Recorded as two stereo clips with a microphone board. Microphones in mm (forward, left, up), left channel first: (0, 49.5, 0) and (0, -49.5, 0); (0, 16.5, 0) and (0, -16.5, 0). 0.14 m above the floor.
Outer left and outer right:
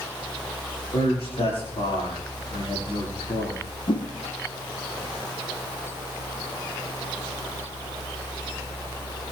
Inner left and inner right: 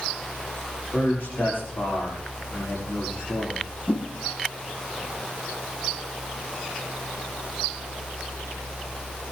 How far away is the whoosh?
About 2 m.